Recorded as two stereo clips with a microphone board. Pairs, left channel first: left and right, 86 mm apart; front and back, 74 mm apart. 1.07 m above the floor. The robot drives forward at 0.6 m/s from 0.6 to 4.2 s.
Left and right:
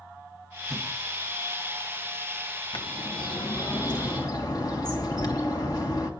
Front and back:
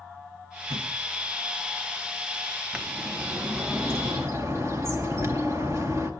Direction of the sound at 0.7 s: Straight behind.